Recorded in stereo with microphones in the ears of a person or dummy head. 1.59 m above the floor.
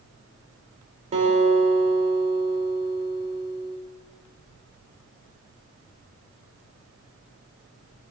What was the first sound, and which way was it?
A guitar, 35° right (ahead or behind).